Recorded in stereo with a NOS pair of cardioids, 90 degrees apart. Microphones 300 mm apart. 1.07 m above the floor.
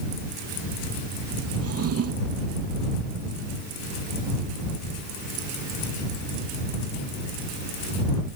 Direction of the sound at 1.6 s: 50° right.